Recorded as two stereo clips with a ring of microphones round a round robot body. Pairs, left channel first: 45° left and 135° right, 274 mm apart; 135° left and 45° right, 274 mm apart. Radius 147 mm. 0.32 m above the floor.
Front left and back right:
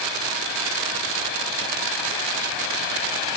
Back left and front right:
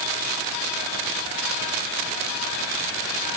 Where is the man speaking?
No man speaking in this recording.